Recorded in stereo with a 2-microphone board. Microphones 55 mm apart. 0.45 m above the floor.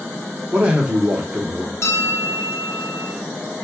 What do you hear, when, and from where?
0.5 s a man speaking: 20° right (ahead or behind), 0.9 m
1.8 s a bell: 55° left (ahead or behind), 0.7 m